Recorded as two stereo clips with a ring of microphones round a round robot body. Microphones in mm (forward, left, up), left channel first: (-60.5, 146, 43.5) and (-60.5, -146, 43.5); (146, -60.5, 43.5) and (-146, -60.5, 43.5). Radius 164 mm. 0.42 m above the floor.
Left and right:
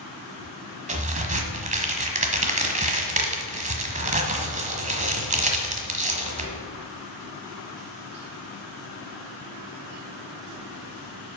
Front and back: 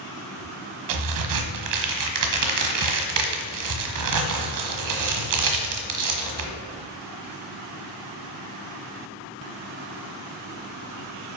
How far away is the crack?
About 1.4 m.